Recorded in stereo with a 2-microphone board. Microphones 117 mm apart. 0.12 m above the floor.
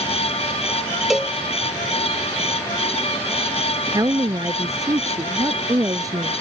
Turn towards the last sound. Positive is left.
turn(degrees=-30)  # may be behind; listen again after turning